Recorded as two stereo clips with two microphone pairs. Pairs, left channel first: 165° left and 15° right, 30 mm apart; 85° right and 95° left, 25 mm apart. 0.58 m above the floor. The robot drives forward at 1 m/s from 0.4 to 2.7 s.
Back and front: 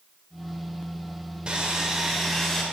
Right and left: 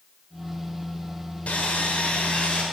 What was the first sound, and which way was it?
Sawing, 75° right.